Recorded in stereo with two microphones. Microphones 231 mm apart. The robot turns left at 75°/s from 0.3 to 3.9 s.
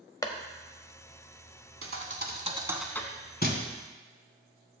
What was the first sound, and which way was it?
A clap, 15° left (ahead or behind).